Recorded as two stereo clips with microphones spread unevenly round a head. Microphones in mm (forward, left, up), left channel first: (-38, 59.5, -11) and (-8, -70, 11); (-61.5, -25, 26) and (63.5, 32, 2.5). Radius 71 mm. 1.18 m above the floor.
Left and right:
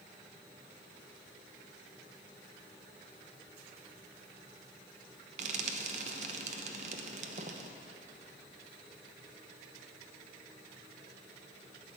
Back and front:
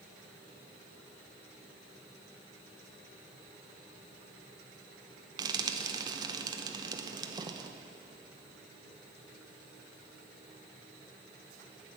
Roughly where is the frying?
Ahead right.